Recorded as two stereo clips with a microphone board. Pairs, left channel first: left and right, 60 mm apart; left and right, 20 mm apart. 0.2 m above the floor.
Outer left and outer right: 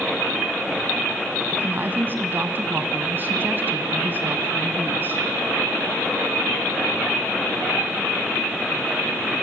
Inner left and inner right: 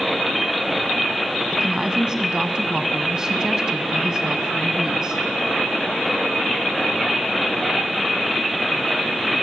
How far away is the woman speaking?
About 1.5 m.